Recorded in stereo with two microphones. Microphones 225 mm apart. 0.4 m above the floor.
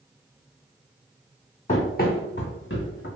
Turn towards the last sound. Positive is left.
turn(degrees=65)  # may be behind; listen again after turning